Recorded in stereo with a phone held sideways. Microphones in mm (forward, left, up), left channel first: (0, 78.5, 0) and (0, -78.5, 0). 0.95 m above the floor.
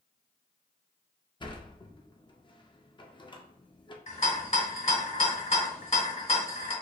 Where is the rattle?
45° left (ahead or behind), 1.2 m.